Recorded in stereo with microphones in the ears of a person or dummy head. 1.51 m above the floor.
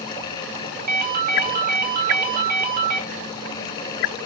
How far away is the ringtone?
About 0.7 m.